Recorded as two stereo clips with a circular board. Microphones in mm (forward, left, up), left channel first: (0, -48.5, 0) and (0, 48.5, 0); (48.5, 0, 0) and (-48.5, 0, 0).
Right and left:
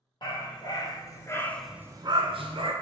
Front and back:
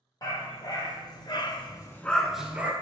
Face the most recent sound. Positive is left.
turn(degrees=105)